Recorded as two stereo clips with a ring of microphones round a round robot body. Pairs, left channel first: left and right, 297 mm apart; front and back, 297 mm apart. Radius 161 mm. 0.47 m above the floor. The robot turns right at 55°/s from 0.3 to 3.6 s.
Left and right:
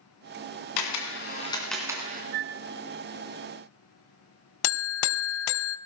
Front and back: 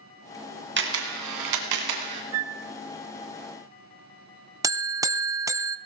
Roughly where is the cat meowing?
No cat meowing in this recording.